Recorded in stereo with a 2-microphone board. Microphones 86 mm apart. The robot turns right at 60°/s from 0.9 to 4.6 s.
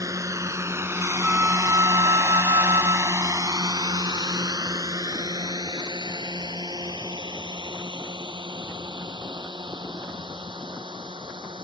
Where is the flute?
170° right; by 3.3 s 45° right.